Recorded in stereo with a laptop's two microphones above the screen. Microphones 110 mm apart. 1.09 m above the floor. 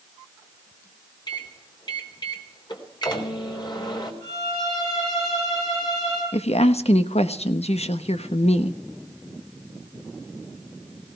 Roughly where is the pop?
I don't hear a pop.